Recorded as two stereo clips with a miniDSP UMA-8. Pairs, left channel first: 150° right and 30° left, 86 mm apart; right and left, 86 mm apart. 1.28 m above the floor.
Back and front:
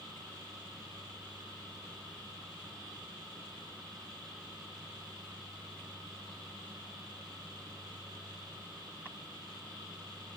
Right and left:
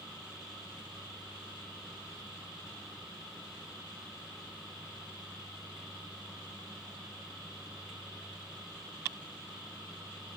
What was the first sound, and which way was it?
Only background noise.